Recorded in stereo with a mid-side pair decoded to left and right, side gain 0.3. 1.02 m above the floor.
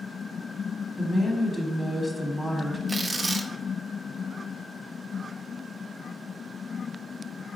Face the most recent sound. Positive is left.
turn(degrees=-40)